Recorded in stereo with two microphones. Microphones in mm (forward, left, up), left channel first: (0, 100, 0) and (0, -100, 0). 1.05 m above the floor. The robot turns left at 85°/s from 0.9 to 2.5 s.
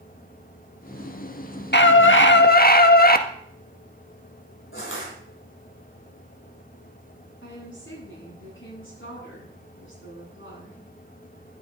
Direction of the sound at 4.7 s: 80° left.